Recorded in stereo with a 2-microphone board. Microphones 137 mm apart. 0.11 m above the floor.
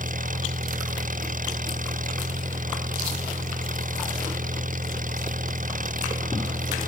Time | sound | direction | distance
0.0 | an engine running | 75° right (ahead or behind) | ?